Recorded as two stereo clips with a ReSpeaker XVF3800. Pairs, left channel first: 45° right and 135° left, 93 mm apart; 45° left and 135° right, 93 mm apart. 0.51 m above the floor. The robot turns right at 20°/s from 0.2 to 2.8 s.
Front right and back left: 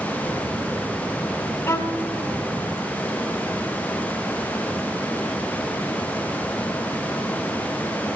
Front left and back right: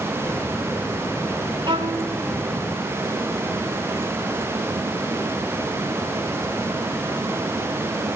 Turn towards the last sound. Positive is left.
turn(degrees=-85)